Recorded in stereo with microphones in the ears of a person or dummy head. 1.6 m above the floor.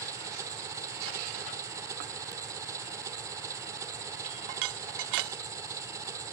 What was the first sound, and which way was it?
An engine running, 15° right (ahead or behind).